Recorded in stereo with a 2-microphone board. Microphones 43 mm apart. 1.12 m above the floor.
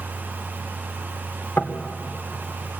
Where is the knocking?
50° left (ahead or behind), 2.5 m.